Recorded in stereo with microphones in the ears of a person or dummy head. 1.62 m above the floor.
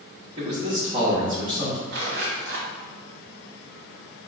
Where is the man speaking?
35° right (ahead or behind), 1.0 m.